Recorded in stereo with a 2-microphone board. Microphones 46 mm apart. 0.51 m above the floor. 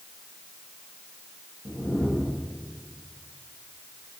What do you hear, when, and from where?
1.6 s a whoosh: 55° left (ahead or behind), 10 m